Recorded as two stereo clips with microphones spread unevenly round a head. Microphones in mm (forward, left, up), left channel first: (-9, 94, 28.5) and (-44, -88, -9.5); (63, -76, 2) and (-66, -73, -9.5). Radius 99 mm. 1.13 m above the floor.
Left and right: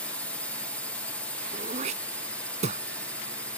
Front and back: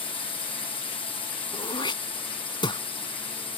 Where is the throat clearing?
40° right.